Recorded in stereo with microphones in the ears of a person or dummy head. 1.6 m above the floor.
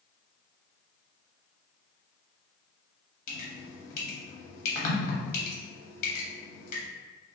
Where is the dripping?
45° left (ahead or behind), 0.9 m.